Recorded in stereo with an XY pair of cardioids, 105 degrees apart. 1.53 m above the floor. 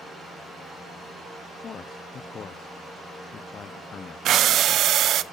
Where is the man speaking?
50° left, 0.6 m.